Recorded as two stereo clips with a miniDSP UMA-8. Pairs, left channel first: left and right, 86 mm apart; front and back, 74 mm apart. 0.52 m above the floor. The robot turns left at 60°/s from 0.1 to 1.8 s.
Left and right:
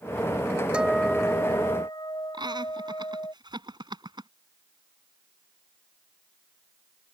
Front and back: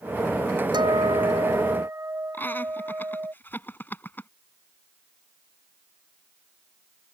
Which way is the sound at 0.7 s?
170° right.